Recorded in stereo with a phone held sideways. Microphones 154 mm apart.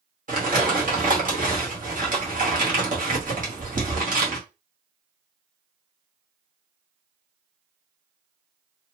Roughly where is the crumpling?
Right.